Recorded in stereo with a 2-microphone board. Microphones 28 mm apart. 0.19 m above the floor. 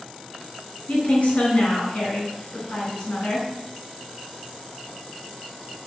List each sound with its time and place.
0.9 s a woman speaking: 55° left (ahead or behind), 2 m